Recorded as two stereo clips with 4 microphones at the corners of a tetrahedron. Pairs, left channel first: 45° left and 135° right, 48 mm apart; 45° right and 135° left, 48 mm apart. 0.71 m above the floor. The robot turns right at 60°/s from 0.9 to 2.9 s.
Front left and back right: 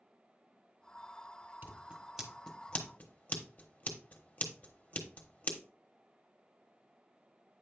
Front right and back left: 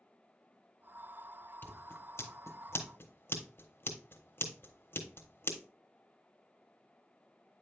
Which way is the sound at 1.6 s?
90° right.